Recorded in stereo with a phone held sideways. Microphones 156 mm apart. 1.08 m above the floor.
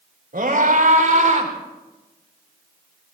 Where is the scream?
70° right (ahead or behind), 4.5 m; by 1.5 s 55° right (ahead or behind), 3.5 m.